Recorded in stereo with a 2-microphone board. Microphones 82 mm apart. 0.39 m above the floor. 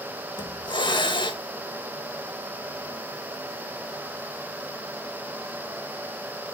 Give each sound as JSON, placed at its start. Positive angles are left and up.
{"t": 0.4, "sound": "a hiss", "side_deg": 65, "distance_m": 0.8}